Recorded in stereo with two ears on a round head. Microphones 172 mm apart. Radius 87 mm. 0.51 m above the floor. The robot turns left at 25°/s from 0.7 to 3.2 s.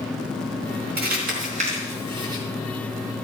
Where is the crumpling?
55° right (ahead or behind), 4 m; by 2.4 s 20° right (ahead or behind), 4 m.